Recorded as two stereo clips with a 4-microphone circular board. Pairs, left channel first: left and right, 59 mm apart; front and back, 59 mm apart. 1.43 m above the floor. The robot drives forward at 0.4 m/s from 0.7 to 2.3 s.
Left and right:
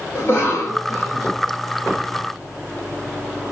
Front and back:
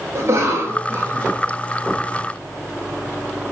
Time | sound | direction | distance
0.1 | a cough | 135° left | 1.9 m